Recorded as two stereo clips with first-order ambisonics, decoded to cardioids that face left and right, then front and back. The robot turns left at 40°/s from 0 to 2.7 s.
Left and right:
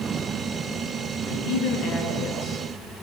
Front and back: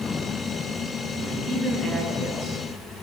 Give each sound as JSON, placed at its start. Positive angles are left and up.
{"t": 1.2, "sound": "a man speaking", "azimuth_deg": 105, "distance_m": 9.0}